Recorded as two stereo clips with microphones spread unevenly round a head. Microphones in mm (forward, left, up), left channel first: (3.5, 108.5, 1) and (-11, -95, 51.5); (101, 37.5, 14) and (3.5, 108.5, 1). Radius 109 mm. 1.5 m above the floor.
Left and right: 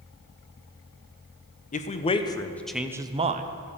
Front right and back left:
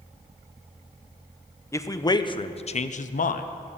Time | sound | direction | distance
1.7 | a man speaking | 35° left | 1.0 m